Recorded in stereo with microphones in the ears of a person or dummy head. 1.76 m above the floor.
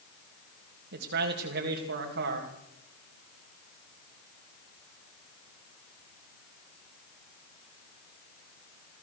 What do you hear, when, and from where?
0.9 s a man speaking: 65° right (ahead or behind), 3 m